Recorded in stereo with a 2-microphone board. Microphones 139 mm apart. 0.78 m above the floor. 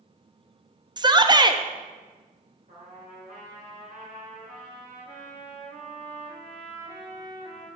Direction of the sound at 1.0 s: 30° right (ahead or behind).